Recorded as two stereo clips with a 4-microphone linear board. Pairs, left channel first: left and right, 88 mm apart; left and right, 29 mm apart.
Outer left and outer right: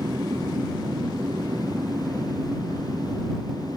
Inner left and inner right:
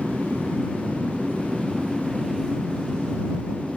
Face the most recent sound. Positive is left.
turn(degrees=-50)  # may be behind; listen again after turning